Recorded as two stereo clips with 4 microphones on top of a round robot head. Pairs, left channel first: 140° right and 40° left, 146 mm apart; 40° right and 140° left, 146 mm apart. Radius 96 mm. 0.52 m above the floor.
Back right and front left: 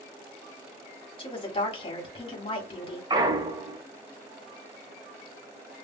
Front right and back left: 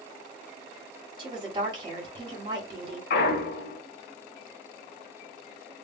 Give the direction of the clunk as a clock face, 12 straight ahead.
1 o'clock.